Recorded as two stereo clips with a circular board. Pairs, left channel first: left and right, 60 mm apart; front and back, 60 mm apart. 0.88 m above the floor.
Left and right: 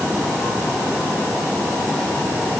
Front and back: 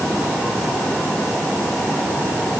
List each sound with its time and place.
Only background noise.